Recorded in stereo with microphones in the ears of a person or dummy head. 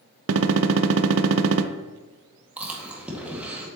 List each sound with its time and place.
0.3 s a gunshot: 70° right (ahead or behind), 0.6 m
2.6 s chewing: 5° right (ahead or behind), 1.8 m